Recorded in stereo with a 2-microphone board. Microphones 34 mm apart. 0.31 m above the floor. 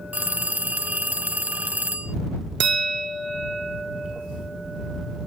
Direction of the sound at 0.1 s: 60° right (ahead or behind).